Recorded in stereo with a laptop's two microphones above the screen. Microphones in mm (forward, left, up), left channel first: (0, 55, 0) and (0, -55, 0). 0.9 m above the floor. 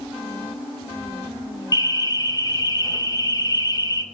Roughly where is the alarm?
Left.